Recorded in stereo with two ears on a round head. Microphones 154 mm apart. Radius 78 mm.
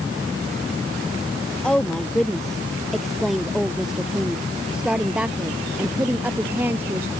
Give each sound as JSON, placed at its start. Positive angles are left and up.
{"t": 1.6, "sound": "a woman speaking", "side_deg": 5}